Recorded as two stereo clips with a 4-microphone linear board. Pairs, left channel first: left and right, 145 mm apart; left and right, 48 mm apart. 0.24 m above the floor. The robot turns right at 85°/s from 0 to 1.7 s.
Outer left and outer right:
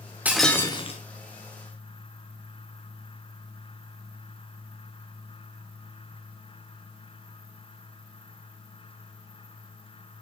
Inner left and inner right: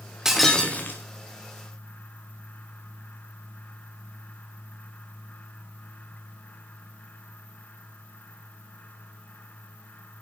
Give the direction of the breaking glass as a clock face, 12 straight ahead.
12 o'clock.